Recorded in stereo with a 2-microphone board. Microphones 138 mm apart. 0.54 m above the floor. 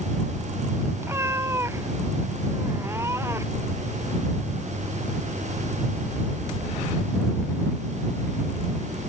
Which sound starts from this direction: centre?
A cat meowing, at 1.0 s.